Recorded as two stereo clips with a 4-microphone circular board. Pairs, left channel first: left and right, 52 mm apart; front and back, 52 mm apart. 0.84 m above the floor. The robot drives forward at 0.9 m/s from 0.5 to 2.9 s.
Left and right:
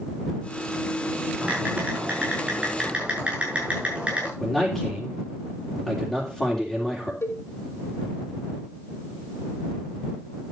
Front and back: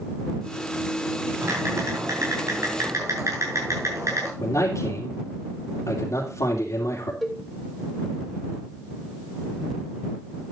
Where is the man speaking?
Straight ahead, 3 m.